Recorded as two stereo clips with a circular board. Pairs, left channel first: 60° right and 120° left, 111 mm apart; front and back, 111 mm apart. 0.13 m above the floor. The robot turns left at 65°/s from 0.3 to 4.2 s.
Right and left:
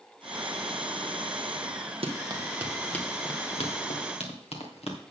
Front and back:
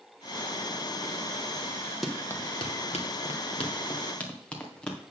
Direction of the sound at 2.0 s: 90° left.